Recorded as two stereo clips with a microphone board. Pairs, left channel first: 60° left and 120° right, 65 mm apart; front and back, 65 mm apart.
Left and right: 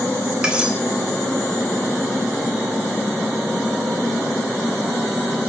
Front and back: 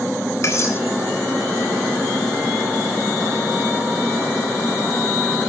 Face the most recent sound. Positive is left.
turn(degrees=-45)